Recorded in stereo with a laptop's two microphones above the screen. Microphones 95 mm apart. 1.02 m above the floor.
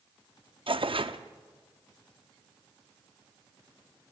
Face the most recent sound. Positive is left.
turn(degrees=-70)  # may be behind; listen again after turning